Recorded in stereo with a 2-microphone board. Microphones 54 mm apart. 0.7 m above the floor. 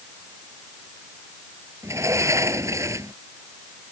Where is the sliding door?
70° right (ahead or behind).